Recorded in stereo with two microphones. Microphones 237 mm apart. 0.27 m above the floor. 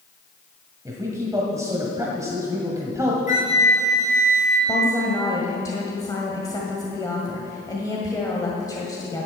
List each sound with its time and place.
0.8 s a man speaking: 15° right (ahead or behind), 1.6 m
3.3 s a flute: 30° left (ahead or behind), 4.5 m
4.7 s a woman speaking: 15° left (ahead or behind), 1.7 m